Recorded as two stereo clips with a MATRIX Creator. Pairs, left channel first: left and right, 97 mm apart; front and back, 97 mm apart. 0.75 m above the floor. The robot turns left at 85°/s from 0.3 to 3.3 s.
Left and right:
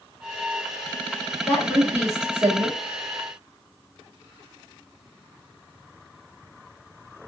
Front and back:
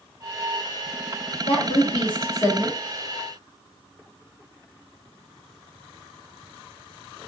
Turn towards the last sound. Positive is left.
turn(degrees=-135)